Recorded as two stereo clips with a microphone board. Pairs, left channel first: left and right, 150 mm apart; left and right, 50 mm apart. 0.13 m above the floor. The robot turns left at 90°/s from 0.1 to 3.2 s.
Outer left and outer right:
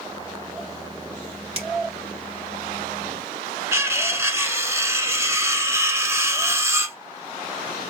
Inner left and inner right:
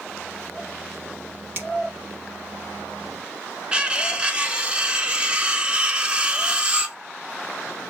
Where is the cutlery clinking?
20° right (ahead or behind), 0.9 m.